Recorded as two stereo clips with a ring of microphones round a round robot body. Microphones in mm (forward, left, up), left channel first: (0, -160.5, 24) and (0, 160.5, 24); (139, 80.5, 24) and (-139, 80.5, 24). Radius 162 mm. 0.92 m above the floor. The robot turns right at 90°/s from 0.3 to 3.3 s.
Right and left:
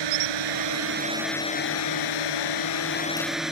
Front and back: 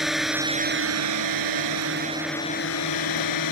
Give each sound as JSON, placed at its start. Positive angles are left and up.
{"t": 0.0, "sound": "a drone", "azimuth_deg": 90}